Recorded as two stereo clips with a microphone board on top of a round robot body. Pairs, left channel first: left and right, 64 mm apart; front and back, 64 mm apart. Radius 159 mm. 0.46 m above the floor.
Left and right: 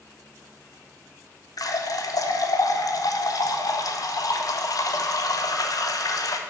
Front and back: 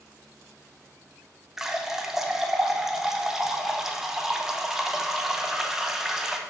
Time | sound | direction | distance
1.6 | a running tap | 95° left | 0.8 m